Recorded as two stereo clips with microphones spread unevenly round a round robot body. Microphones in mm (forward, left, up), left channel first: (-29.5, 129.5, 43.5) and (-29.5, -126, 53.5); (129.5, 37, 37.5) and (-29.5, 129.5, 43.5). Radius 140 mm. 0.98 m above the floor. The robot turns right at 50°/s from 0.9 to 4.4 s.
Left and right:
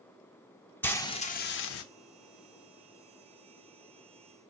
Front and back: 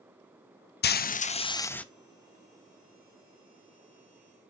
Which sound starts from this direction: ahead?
Frying, at 0.8 s.